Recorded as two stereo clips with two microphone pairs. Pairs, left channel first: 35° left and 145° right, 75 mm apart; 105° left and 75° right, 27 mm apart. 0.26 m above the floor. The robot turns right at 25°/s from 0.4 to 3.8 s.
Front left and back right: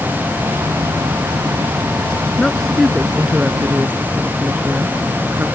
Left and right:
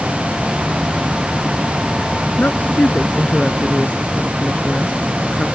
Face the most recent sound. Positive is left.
turn(degrees=150)